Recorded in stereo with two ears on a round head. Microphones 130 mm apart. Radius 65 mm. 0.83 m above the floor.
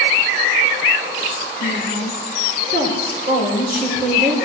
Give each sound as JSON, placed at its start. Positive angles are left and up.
{"t": 1.6, "sound": "a woman speaking", "side_deg": -65, "distance_m": 3.5}